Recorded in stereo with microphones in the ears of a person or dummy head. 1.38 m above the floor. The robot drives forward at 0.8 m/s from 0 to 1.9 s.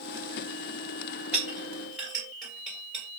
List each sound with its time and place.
1.3 s a clink: 10° right (ahead or behind), 2 m; by 3.0 s 5° right (ahead or behind), 2.5 m